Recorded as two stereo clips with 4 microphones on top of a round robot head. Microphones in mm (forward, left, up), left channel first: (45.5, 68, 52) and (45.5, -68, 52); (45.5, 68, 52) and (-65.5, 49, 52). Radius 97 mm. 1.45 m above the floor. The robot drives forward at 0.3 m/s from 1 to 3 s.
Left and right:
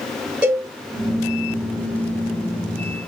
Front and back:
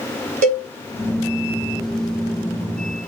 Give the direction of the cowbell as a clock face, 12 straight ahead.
6 o'clock.